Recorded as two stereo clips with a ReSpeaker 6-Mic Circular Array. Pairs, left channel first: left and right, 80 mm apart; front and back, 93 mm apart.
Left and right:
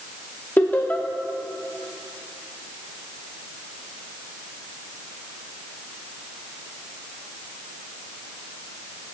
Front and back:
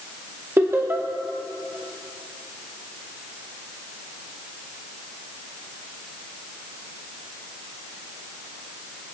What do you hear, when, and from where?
0.6 s laughter: 140° left, 0.8 m